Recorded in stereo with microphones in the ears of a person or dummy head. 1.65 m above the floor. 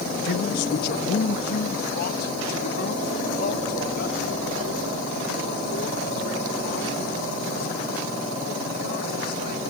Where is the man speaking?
70° left (ahead or behind); by 9.6 s 60° left (ahead or behind).